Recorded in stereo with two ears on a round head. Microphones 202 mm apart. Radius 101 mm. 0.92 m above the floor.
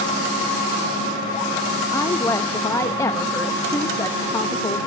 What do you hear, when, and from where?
1.9 s a woman speaking: 15° left (ahead or behind), 0.8 m